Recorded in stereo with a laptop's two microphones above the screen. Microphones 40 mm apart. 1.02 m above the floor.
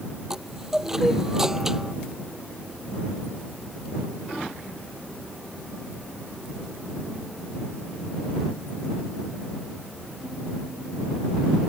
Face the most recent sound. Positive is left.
turn(degrees=-10)  # may be behind; listen again after turning